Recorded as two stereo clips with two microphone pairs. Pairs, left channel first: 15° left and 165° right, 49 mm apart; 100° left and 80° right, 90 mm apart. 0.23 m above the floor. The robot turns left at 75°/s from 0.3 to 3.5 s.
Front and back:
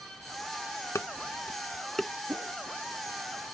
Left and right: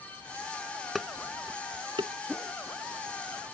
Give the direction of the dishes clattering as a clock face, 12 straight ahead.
12 o'clock.